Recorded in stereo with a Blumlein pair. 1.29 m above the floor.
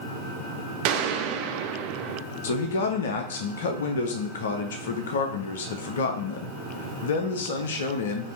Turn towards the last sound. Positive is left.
turn(degrees=60)